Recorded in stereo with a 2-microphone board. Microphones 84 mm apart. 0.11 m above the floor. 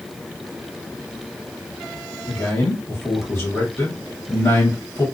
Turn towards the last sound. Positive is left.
turn(degrees=40)  # may be behind; listen again after turning